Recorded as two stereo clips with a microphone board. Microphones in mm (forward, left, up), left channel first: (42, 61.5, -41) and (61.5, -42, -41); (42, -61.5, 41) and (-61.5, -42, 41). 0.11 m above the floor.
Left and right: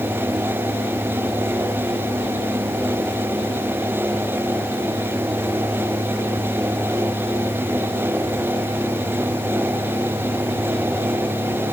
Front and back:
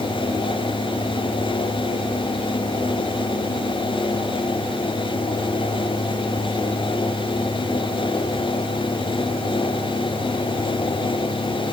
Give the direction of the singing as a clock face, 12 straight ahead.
No singing in this recording.